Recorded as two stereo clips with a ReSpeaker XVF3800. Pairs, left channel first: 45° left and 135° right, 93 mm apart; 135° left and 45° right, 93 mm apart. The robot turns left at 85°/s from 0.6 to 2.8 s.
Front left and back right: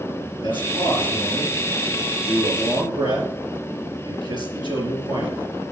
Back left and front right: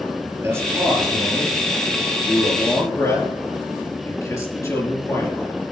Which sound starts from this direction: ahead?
A man speaking, at 0.4 s.